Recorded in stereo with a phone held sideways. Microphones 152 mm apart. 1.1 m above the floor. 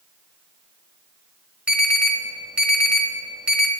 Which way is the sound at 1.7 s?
5° right (ahead or behind).